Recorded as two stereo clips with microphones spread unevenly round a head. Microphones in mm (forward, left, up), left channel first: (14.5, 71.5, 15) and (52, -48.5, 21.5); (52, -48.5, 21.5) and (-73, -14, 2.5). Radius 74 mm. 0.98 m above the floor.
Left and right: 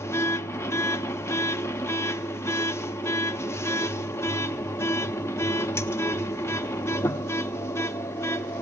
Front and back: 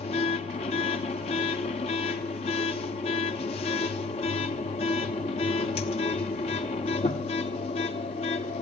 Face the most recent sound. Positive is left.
turn(degrees=35)